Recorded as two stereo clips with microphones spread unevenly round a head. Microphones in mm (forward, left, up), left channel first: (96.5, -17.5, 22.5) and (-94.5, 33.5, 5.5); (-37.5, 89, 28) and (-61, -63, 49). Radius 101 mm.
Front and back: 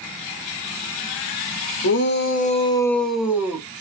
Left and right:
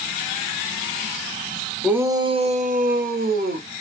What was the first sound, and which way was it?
A shout, 15° right.